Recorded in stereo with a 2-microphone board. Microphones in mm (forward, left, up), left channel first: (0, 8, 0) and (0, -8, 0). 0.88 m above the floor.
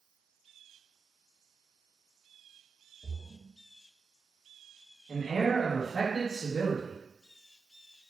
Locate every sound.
3.0 s a splash: 5° right (ahead or behind), 0.7 m
5.1 s a man speaking: 40° left (ahead or behind), 1.5 m